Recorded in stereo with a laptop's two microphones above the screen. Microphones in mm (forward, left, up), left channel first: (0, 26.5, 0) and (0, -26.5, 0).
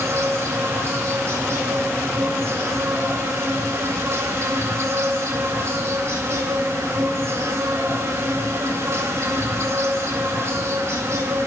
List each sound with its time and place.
0.0 s an insect: 60° right (ahead or behind), 1.7 m